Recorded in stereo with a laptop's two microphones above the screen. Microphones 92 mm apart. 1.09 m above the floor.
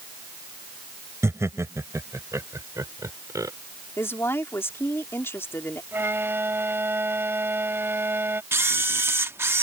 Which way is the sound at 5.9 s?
25° right (ahead or behind).